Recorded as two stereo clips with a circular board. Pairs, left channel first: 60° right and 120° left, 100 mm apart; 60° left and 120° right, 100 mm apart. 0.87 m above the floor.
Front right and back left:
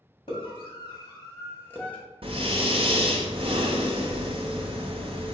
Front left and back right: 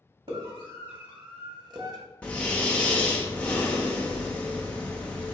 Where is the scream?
95° right, 1.8 m; by 2.0 s 130° right, 1.0 m.